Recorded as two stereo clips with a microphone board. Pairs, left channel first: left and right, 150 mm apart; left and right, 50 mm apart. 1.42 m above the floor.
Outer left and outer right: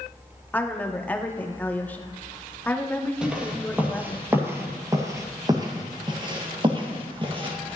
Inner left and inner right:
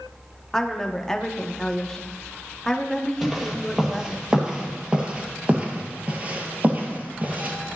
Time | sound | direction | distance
0.5 | a woman speaking | 10° left (ahead or behind) | 0.9 m
3.2 | footsteps | 5° right (ahead or behind) | 2.0 m